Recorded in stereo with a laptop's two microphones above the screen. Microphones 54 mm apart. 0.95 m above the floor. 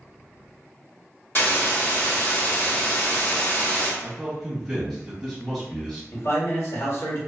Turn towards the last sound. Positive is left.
turn(degrees=55)  # may be behind; listen again after turning